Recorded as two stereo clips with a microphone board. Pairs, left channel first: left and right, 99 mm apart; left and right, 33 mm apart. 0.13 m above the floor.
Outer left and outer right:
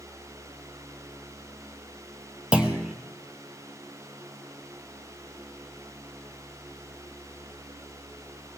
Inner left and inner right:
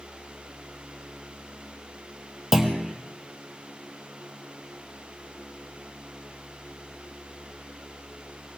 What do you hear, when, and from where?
2.5 s a clunk: 10° right (ahead or behind), 1.5 m